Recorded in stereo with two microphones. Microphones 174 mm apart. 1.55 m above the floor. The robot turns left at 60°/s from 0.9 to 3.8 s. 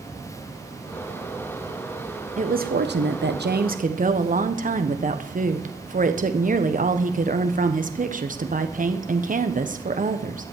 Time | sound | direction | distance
2.4 | a woman speaking | 45° right | 1.2 m